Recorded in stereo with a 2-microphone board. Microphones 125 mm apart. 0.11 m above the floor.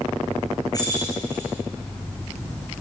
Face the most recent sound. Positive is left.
turn(degrees=30)  # may be behind; listen again after turning